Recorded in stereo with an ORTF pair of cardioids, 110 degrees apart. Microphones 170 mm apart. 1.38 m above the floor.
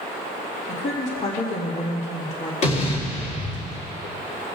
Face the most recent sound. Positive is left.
turn(degrees=40)